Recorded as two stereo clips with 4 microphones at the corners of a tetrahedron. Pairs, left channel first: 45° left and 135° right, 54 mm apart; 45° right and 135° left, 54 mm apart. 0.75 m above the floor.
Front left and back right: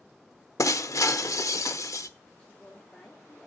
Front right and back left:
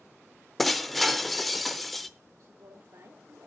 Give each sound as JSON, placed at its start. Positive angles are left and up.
{"t": 0.6, "sound": "breaking glass", "azimuth_deg": 45, "distance_m": 0.7}
{"t": 2.4, "sound": "a woman speaking", "azimuth_deg": 120, "distance_m": 1.6}